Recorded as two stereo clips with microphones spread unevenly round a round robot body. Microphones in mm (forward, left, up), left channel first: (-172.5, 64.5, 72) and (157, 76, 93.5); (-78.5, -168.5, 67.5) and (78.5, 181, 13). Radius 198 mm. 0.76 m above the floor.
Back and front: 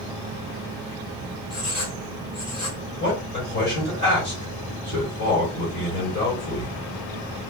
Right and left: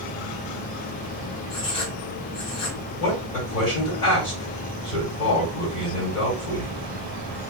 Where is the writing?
100° right, 3 m.